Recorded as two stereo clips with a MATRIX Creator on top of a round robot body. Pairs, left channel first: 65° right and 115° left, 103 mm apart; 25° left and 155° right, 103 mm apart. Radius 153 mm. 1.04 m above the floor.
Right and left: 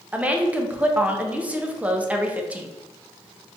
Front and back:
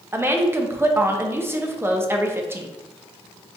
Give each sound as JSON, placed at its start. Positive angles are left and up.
{"t": 0.1, "sound": "a woman speaking", "azimuth_deg": 170, "distance_m": 0.6}